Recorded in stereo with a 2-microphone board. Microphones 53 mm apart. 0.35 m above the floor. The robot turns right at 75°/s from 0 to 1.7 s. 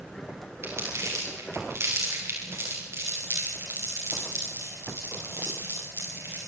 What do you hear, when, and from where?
0.6 s crumpling: 45° right (ahead or behind), 8 m; by 6.4 s 55° right (ahead or behind), 8 m